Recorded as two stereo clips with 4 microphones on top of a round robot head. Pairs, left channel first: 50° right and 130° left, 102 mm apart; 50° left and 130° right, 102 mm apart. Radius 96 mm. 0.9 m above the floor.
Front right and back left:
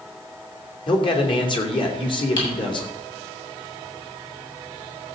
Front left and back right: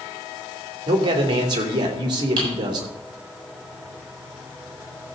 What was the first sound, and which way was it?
A man speaking, 85° right.